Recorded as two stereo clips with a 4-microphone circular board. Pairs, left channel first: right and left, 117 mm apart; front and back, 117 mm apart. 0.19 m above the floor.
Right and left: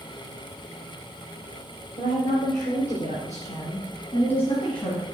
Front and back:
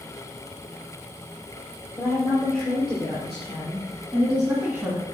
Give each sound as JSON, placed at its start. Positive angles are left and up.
{"t": 2.0, "sound": "a woman speaking", "azimuth_deg": -85, "distance_m": 4.0}